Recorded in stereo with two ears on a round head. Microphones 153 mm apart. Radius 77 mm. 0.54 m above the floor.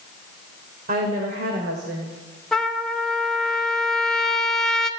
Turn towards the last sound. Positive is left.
turn(degrees=5)  # may be behind; listen again after turning